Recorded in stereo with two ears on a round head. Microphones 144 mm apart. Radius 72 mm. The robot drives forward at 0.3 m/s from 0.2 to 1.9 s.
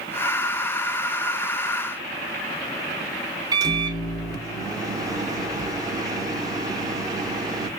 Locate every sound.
3.5 s a microwave: 25° right (ahead or behind), 0.7 m